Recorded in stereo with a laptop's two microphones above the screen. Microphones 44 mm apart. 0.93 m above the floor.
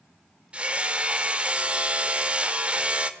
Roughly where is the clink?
No clink in this recording.